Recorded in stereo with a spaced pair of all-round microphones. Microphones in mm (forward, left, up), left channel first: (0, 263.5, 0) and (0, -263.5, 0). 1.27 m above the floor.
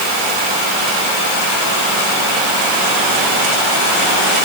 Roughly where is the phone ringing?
No phone ringing in this recording.